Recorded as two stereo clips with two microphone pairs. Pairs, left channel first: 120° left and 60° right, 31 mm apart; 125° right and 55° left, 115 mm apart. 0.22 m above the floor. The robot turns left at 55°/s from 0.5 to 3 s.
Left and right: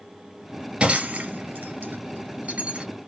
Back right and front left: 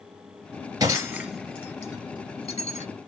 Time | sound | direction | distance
0.8 | breaking glass | 5° right | 1.6 m